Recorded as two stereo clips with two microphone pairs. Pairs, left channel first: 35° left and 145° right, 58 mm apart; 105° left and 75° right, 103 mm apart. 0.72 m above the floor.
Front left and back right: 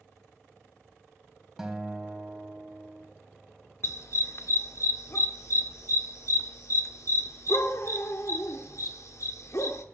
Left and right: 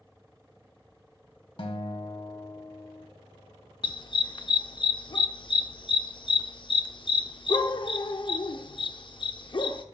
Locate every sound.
1.6 s a guitar: 135° left, 1.3 m
3.8 s a dog barking: 65° left, 0.6 m